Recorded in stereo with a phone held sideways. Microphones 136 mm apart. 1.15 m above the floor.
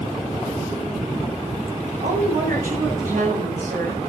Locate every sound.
2.0 s a woman speaking: 85° right, 8.5 m